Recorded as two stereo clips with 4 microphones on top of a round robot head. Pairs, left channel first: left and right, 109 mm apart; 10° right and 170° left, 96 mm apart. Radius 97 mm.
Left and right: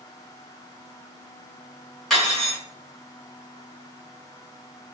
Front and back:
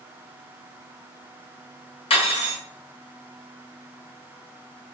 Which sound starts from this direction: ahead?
Cutlery clinking, at 2.1 s.